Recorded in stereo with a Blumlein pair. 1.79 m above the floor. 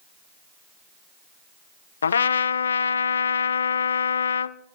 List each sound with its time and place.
2.0 s a trumpet: 70° left, 0.5 m